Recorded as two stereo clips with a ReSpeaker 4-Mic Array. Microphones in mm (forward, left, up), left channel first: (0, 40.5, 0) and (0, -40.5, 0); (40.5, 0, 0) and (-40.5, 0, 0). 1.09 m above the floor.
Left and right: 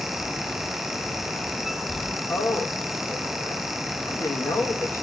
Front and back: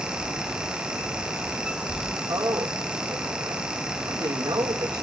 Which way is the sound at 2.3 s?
145° left.